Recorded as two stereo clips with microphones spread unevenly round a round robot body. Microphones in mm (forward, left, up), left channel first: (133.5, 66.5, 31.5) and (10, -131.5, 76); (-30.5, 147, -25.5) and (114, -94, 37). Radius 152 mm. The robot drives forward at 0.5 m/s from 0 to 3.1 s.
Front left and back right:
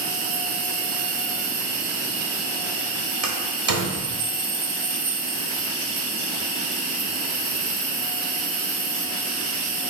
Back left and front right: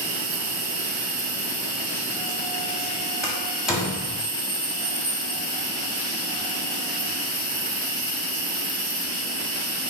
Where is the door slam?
155° right, 1.4 m.